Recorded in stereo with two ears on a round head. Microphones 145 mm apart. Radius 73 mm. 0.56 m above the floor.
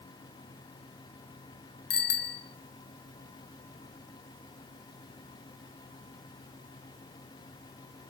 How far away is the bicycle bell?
About 3 m.